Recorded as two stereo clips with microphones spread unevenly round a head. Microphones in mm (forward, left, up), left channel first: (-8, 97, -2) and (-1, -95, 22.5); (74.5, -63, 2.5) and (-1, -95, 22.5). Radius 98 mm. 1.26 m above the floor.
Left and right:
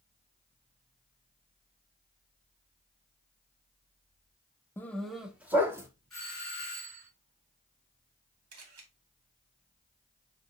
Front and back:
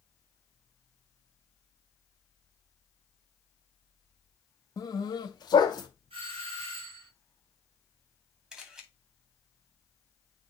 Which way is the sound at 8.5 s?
75° right.